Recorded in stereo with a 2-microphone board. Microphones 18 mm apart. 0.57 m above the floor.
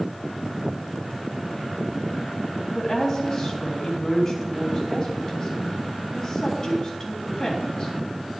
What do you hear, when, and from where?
2.8 s a woman speaking: 20° left (ahead or behind), 3 m